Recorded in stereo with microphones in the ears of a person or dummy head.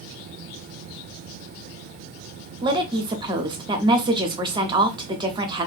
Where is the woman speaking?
20° right (ahead or behind), 0.5 m.